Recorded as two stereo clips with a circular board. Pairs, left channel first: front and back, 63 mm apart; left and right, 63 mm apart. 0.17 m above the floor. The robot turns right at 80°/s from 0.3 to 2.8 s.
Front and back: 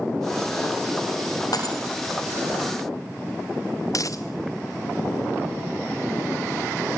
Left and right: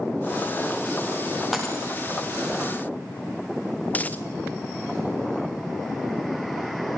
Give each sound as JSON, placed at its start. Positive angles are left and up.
{"t": 1.5, "sound": "breaking glass", "azimuth_deg": -5, "distance_m": 8.0}
{"t": 3.9, "sound": "a dropped coin", "azimuth_deg": 25, "distance_m": 1.3}